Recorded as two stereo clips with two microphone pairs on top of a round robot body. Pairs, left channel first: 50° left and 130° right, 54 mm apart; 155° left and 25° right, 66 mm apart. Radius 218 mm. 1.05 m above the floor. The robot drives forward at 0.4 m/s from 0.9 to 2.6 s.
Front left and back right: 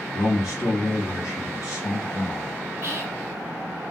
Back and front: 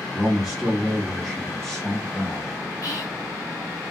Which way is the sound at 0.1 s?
60° left.